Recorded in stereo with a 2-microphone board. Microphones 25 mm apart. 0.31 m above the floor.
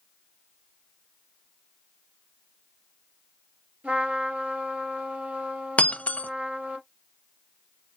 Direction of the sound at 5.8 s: 60° left (ahead or behind).